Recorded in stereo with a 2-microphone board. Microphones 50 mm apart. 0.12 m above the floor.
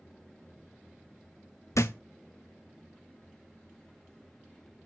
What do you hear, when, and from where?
1.8 s a thud: 85° left, 0.6 m